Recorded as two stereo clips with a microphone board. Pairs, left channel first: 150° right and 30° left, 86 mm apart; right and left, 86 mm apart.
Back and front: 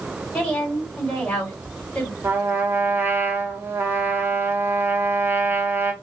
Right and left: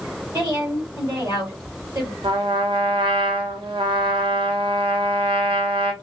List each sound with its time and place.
0.3 s a woman speaking: 135° left, 2.5 m
2.2 s a trumpet: 95° left, 0.7 m